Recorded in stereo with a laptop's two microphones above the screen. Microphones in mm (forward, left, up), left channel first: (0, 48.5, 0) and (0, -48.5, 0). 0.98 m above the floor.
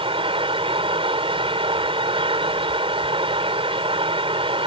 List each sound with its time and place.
0.0 s a fan: 70° right (ahead or behind)